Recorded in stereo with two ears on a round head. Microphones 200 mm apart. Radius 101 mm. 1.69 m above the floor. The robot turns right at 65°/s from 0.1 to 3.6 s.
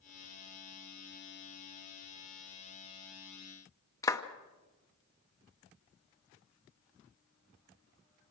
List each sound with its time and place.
4.0 s a clap: 15° left (ahead or behind), 0.9 m